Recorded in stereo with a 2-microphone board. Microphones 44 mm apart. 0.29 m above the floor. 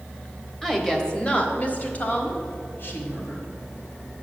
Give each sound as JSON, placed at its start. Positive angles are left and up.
{"t": 0.6, "sound": "a woman speaking", "side_deg": 5, "distance_m": 1.0}